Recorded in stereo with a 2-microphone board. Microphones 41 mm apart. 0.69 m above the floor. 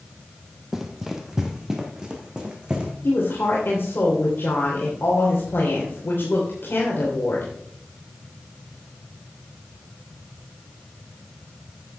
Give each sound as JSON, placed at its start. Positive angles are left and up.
{"t": 0.7, "sound": "running footsteps", "side_deg": -5, "distance_m": 1.3}
{"t": 3.0, "sound": "a woman speaking", "side_deg": 65, "distance_m": 2.5}